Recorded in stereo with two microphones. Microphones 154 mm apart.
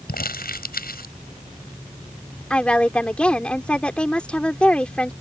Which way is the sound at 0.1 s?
75° left (ahead or behind).